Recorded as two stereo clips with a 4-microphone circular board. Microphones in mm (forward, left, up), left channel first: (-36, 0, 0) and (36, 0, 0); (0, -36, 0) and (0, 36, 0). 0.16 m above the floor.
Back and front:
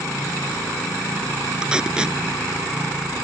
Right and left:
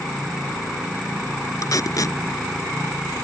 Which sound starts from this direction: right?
Tape being pulled, at 1.6 s.